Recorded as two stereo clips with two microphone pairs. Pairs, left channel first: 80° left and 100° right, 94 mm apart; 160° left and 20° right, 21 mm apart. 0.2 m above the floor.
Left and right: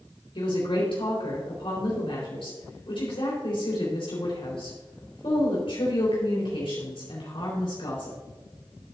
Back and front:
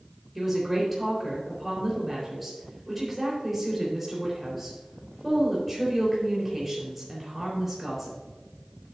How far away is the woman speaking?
About 4.5 m.